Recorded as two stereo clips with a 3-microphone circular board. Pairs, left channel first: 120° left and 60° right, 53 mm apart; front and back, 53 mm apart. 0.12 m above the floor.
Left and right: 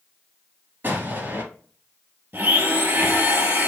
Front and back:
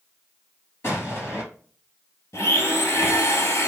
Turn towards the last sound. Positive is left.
turn(degrees=-15)